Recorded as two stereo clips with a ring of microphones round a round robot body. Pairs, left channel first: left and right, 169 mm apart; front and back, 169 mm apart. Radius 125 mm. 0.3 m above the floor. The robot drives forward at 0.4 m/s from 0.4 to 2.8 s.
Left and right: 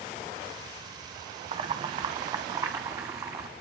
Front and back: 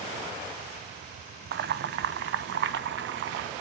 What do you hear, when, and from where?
1.5 s boiling: 150° right, 0.8 m; by 3.5 s 165° right, 1.2 m